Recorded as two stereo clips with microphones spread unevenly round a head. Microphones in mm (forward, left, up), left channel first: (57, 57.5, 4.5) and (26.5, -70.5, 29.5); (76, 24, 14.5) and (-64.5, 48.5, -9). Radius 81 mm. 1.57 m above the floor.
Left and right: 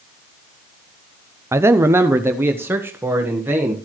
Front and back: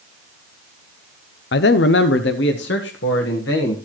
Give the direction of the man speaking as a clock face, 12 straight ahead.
1 o'clock.